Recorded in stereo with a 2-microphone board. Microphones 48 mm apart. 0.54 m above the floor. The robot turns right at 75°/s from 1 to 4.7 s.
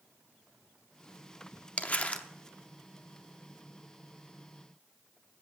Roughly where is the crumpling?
Left.